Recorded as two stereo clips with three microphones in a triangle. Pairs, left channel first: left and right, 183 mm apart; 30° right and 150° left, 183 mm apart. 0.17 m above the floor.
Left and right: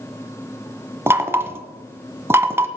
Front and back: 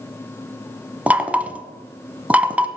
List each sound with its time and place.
1.1 s knocking: 140° right, 0.9 m